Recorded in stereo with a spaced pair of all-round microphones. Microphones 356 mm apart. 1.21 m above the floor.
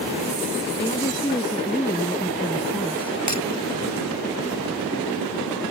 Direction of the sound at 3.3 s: 55° right (ahead or behind).